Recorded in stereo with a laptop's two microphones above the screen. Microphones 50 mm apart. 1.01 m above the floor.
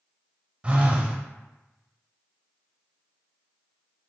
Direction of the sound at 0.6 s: 20° right (ahead or behind).